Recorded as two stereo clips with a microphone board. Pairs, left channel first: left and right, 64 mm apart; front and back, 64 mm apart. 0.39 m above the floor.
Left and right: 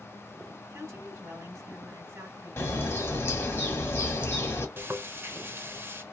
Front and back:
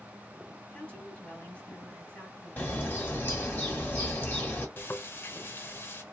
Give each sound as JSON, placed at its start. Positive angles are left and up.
{"t": 0.7, "sound": "a woman speaking", "azimuth_deg": -65, "distance_m": 2.0}
{"t": 2.6, "sound": "a bird", "azimuth_deg": 55, "distance_m": 1.5}
{"t": 4.8, "sound": "frying", "azimuth_deg": -45, "distance_m": 0.7}